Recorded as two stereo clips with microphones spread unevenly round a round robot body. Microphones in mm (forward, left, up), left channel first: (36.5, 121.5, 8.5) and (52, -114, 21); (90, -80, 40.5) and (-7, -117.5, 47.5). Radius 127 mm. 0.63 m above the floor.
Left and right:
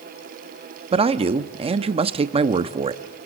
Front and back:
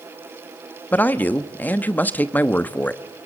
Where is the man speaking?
35° right, 0.8 m.